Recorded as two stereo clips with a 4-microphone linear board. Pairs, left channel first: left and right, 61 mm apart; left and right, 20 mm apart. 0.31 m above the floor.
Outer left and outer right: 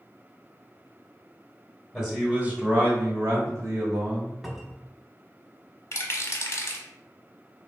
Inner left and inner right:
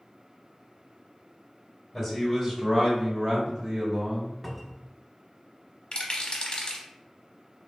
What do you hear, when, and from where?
1.9 s a man speaking: 5° right (ahead or behind), 1.0 m; by 4.3 s 60° right (ahead or behind), 1.9 m
4.4 s a cupboard door: 5° right (ahead or behind), 0.6 m
5.9 s a rattle: 45° left (ahead or behind), 0.7 m